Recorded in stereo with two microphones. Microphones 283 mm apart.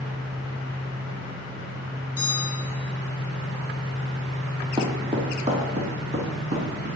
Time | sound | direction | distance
2.2 | a bell | 50° left (ahead or behind) | 1.2 m
4.8 | footsteps | 15° right (ahead or behind) | 1.7 m